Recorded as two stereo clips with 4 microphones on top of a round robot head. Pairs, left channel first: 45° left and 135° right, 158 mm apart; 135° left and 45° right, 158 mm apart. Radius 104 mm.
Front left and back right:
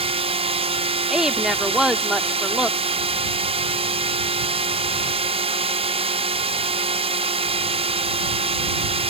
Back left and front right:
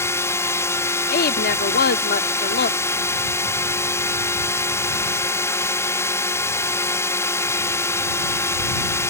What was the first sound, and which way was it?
A drone, 160° right.